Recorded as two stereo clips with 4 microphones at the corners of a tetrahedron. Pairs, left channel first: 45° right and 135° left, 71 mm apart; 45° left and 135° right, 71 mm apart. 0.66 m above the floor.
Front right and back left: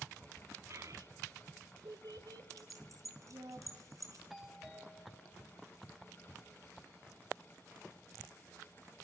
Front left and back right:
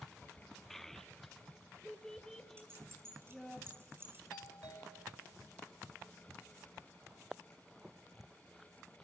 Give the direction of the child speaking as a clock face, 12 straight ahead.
8 o'clock.